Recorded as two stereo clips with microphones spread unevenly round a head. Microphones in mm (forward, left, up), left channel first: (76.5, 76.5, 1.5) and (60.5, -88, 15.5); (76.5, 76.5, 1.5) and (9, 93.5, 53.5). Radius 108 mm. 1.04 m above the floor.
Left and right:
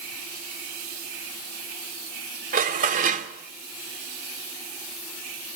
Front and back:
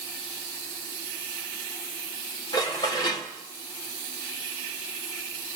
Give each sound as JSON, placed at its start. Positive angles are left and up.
{"t": 2.5, "sound": "dishes clattering", "azimuth_deg": -60, "distance_m": 1.9}